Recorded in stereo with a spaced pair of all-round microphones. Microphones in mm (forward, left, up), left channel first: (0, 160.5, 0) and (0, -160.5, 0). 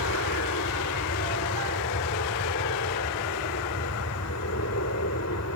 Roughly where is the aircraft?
Left.